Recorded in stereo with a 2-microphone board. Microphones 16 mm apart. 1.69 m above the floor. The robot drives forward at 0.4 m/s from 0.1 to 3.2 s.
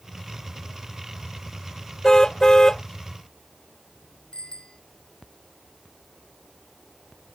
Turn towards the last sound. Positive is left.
turn(degrees=75)  # may be behind; listen again after turning